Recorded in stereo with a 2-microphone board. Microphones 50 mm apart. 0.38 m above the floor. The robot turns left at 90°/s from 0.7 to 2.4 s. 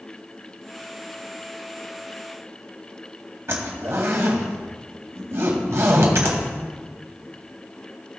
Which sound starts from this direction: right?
A zipper, at 3.5 s.